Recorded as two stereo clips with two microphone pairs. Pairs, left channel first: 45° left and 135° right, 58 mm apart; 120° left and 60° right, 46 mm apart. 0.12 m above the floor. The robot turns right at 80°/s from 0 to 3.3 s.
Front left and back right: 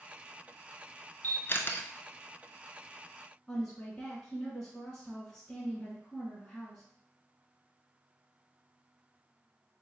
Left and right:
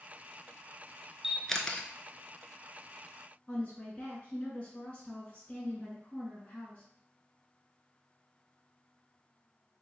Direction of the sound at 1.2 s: 15° left.